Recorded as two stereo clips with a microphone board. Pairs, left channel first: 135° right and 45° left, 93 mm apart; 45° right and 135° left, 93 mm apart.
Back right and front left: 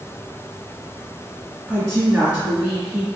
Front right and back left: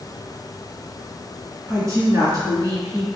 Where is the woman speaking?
135° left, 1.9 m.